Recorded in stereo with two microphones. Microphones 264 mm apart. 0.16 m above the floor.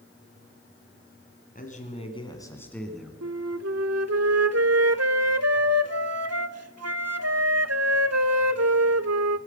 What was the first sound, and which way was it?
A man speaking, 30° left (ahead or behind).